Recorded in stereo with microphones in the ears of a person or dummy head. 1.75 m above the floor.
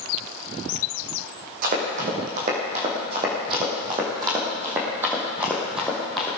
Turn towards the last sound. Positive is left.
turn(degrees=0)  # may be behind; listen again after turning